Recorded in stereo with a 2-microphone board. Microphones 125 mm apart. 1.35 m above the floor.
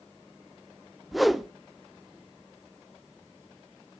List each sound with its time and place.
1.1 s a whoosh: centre (ahead or behind), 0.6 m